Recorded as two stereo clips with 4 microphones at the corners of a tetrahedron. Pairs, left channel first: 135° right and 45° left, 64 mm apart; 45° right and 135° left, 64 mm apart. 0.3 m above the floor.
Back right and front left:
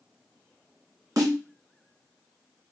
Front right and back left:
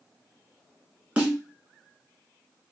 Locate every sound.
1.2 s a snare drum: 75° left, 2.5 m